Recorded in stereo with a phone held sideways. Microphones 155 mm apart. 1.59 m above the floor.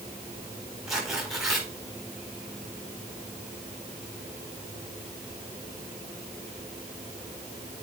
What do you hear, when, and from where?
0.9 s tearing paper: centre (ahead or behind), 4 m